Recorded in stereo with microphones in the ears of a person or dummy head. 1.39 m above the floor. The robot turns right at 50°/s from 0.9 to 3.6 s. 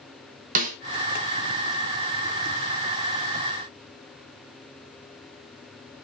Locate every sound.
0.6 s a snare drum: 45° right (ahead or behind), 0.7 m